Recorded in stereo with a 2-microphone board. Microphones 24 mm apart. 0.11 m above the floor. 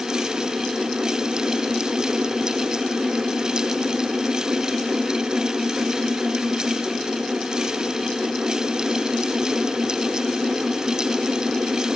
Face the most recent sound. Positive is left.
No sound to turn to.